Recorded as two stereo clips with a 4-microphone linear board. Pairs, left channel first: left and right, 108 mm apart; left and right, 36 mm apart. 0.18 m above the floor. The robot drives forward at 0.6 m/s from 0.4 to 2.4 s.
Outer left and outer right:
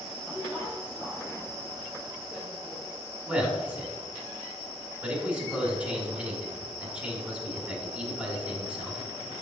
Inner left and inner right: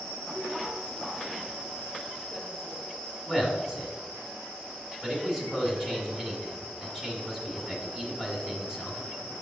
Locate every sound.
0.3 s a woman speaking: 15° right (ahead or behind), 2.5 m; by 3.0 s 10° right (ahead or behind), 3.5 m
3.3 s a man speaking: 15° right (ahead or behind), 1.6 m